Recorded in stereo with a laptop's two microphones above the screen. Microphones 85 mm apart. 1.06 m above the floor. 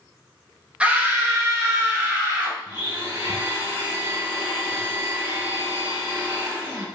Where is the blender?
30° right (ahead or behind), 1.2 m.